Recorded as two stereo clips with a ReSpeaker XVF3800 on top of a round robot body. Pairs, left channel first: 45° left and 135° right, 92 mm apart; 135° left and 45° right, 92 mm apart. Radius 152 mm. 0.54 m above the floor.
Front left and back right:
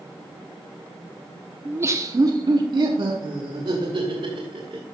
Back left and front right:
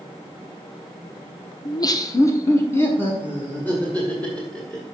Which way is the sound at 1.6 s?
160° left.